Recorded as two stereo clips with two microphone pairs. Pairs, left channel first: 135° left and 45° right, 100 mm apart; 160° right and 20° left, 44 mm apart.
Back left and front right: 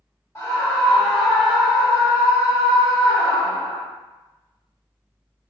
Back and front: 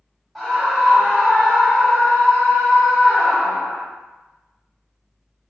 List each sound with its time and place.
0.3 s a scream: 120° left, 1.1 m; by 3.8 s 80° right, 1.9 m